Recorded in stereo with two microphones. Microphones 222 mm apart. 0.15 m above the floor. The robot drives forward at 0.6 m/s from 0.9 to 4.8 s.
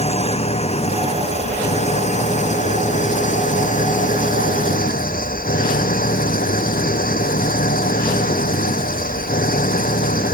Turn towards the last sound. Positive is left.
turn(degrees=40)  # may be behind; listen again after turning